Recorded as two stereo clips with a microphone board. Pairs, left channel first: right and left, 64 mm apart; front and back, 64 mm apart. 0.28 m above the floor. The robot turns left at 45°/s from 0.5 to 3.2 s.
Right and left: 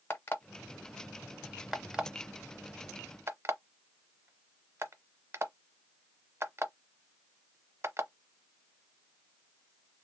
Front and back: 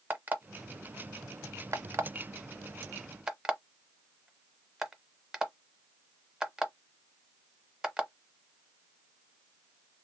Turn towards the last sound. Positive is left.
turn(degrees=105)